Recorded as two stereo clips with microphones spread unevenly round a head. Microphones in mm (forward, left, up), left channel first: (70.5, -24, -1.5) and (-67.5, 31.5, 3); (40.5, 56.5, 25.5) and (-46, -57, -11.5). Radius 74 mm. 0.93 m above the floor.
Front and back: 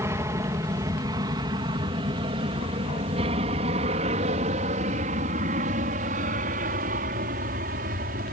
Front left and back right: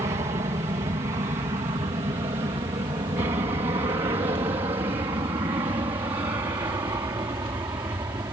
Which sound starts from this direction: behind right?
An aircraft, at 0.0 s.